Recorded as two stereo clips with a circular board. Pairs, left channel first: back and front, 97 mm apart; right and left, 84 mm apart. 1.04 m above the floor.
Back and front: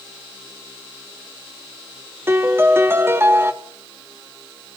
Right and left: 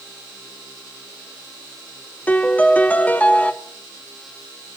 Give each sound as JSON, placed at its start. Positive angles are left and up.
{"t": 2.3, "sound": "a piano", "azimuth_deg": -40, "distance_m": 0.5}